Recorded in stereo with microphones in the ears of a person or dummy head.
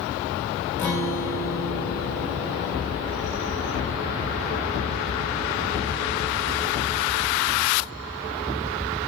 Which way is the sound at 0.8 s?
20° left (ahead or behind).